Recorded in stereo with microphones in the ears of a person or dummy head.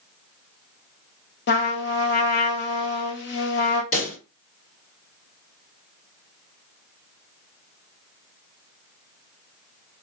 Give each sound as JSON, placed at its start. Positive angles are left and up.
{"t": 1.5, "sound": "a trumpet", "side_deg": 55, "distance_m": 0.7}
{"t": 3.9, "sound": "a pop", "side_deg": 70, "distance_m": 2.5}